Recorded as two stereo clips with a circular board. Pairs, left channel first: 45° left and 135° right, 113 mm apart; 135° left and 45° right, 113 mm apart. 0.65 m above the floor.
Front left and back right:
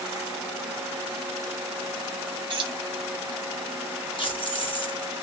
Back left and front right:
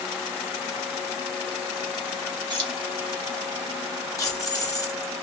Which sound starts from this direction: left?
Keys jangling, at 4.2 s.